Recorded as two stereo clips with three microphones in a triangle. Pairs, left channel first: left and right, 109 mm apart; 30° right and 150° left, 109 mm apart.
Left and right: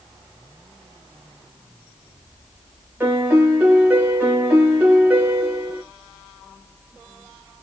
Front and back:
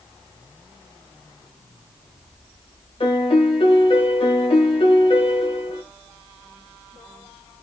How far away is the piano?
About 1.2 m.